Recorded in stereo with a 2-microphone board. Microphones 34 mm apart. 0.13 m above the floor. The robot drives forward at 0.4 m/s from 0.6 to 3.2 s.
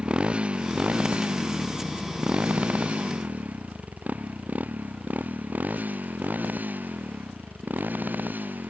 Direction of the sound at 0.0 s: 30° right (ahead or behind).